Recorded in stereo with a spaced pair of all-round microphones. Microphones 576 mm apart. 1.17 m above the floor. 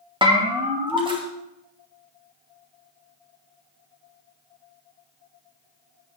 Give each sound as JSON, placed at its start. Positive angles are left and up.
{"t": 0.2, "sound": "a bell", "side_deg": -10, "distance_m": 1.3}